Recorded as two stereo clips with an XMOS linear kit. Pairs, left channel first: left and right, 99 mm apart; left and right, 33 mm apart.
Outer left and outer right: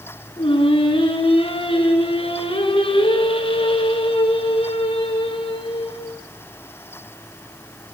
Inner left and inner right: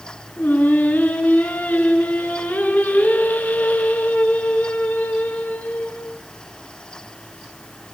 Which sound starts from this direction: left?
Singing, at 0.4 s.